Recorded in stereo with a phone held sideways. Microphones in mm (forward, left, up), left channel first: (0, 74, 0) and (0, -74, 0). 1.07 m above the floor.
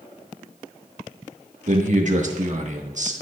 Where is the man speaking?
55° right (ahead or behind), 1.5 m.